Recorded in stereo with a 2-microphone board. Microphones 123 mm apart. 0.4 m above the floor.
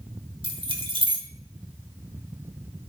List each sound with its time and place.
0.4 s keys jangling: 40° right (ahead or behind), 1.4 m